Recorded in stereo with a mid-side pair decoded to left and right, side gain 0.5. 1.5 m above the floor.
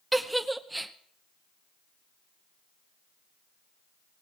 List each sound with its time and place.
0.1 s a giggle: 10° right, 1.0 m